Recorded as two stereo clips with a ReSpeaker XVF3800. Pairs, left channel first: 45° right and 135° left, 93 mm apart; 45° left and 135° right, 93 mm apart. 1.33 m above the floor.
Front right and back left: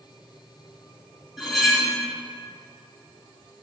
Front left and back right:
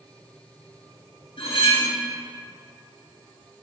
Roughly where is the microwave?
I don't hear a microwave.